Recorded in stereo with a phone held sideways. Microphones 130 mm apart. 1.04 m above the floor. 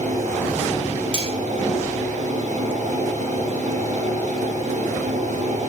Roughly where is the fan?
Right.